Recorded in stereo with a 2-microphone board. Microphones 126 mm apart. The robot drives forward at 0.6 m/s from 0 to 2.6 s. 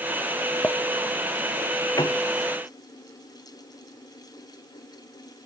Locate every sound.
0.6 s a clink: 10° left (ahead or behind)
2.0 s a piano: 35° left (ahead or behind); by 2.2 s 30° left (ahead or behind)